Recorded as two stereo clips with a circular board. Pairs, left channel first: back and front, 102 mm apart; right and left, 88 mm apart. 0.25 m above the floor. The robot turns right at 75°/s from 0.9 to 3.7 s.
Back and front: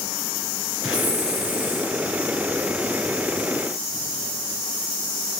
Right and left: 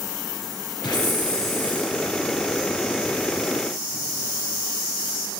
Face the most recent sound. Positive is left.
turn(degrees=130)